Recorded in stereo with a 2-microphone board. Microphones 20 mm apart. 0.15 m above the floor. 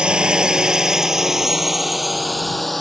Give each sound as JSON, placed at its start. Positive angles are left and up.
{"t": 0.0, "sound": "a drone", "side_deg": -60}